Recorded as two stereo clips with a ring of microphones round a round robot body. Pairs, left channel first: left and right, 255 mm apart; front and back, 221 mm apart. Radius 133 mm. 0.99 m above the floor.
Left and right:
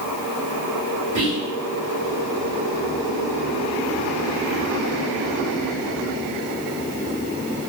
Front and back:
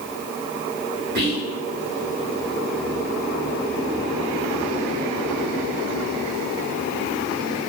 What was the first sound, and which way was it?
Whispering, 145° right.